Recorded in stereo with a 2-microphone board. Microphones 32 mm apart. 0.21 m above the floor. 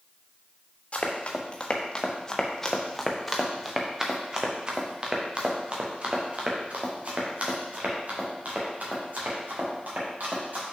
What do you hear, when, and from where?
0.9 s running footsteps: 40° left (ahead or behind), 1.9 m; by 10.6 s 65° right (ahead or behind), 4.5 m